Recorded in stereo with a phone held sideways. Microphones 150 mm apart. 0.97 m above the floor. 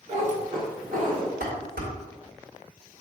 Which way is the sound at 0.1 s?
50° right (ahead or behind).